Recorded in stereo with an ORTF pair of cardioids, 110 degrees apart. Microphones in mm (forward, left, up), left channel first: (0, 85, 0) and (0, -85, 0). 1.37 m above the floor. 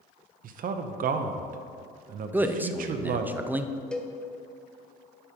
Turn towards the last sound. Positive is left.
turn(degrees=5)